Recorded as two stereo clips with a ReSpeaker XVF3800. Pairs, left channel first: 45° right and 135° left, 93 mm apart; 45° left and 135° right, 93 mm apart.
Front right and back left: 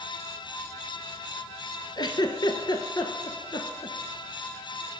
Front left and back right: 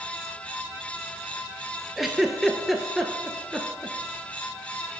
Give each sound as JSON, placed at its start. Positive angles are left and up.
{"t": 2.0, "sound": "a giggle", "azimuth_deg": -50, "distance_m": 0.7}